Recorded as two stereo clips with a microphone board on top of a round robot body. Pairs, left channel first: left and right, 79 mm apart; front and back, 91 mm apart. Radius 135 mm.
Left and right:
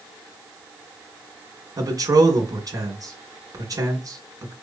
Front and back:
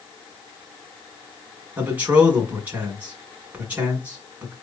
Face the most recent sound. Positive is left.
turn(degrees=-110)